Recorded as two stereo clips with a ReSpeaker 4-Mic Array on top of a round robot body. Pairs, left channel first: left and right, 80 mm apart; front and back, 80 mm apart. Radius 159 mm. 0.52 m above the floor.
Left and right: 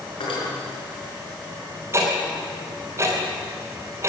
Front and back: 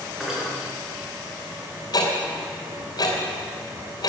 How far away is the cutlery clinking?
About 5.5 m.